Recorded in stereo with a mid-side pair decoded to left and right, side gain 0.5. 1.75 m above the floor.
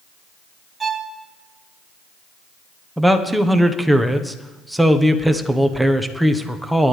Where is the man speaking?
Straight ahead, 1.3 m.